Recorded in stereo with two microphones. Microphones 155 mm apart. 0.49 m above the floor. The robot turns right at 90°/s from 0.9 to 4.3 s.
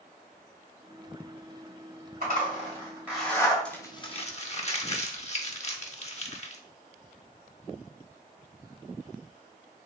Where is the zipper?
70° right (ahead or behind), 2.0 m; by 3.5 s 30° left (ahead or behind), 2.0 m.